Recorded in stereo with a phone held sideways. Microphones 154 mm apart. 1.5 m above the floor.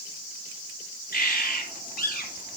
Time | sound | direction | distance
1.1 | a bird | 65° left (ahead or behind) | 5.5 m